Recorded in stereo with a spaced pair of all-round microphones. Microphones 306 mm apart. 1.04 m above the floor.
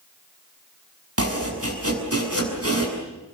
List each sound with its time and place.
1.2 s chopping: 50° right (ahead or behind), 7 m